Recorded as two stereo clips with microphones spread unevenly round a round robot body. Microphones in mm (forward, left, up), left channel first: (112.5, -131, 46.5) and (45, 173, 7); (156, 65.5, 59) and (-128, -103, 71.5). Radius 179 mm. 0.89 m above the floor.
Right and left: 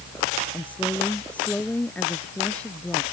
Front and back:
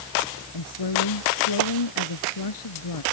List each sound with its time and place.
0.5 s a woman speaking: 10° left